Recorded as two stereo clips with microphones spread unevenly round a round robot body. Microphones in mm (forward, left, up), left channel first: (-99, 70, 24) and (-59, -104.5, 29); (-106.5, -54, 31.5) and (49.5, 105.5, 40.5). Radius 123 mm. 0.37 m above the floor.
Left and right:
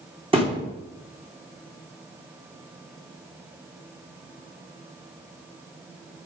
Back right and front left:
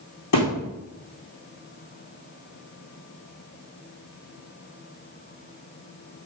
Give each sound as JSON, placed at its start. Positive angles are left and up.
{"t": 0.3, "sound": "a thud", "azimuth_deg": -140, "distance_m": 4.0}